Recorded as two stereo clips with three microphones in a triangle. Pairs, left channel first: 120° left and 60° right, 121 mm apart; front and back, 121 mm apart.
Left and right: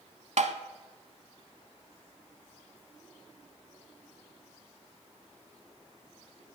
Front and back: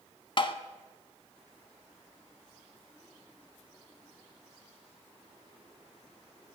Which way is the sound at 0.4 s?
45° right.